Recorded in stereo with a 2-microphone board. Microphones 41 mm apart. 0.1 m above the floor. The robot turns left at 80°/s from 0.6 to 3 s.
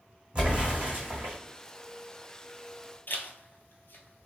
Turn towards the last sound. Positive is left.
turn(degrees=60)  # may be behind; listen again after turning